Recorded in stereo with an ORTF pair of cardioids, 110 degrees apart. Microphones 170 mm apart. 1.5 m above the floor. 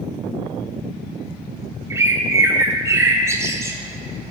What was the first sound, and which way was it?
A bird, 15° right.